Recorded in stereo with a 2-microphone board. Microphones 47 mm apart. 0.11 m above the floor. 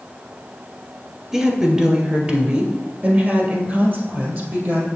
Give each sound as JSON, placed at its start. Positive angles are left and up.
{"t": 1.3, "sound": "a woman speaking", "side_deg": -15, "distance_m": 1.4}